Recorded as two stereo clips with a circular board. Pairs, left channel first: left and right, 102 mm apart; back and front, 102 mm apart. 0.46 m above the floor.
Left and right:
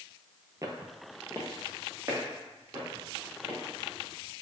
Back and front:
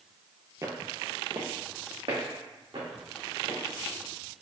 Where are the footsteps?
45° right, 0.6 m; by 3.6 s 20° right, 3 m.